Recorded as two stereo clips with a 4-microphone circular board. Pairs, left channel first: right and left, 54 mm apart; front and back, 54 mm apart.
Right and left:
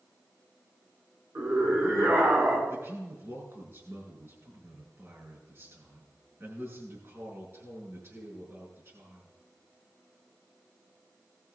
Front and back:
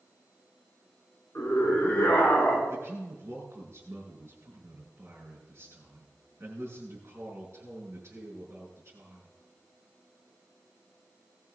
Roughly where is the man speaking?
Behind left.